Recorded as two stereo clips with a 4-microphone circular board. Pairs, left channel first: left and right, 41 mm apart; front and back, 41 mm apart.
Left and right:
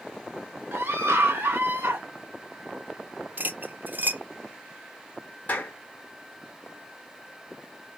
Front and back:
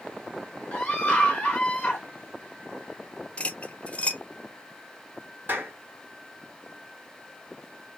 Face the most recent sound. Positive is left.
turn(degrees=135)